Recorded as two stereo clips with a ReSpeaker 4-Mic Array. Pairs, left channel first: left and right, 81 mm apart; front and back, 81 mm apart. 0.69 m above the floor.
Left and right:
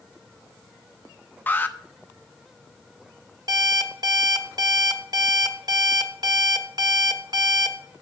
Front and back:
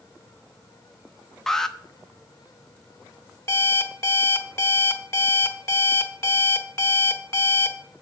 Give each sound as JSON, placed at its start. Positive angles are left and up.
{"t": 1.5, "sound": "an alarm", "azimuth_deg": 75, "distance_m": 0.8}
{"t": 3.5, "sound": "an alarm clock", "azimuth_deg": -55, "distance_m": 1.0}